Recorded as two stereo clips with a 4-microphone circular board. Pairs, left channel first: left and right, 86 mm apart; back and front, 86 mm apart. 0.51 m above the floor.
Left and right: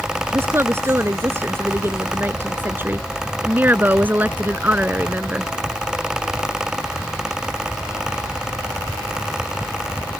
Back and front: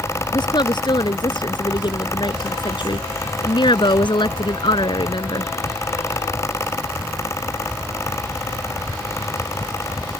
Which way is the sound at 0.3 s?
150° right.